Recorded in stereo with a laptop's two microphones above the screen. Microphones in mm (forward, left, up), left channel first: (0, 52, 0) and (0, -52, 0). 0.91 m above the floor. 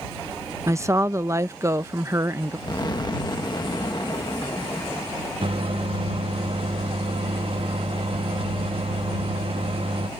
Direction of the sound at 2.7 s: 40° left (ahead or behind).